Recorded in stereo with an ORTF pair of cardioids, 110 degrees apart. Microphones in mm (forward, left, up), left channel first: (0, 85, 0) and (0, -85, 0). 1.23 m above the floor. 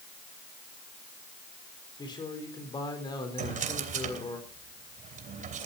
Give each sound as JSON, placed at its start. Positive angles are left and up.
{"t": 2.0, "sound": "a man speaking", "azimuth_deg": 25, "distance_m": 4.5}
{"t": 3.4, "sound": "a drawer", "azimuth_deg": -50, "distance_m": 3.0}